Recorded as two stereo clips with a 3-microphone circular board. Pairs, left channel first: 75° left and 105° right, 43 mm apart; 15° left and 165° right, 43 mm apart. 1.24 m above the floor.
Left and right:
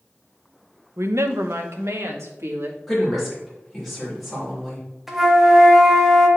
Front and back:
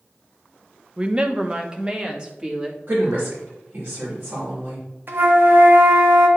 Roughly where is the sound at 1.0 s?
Right.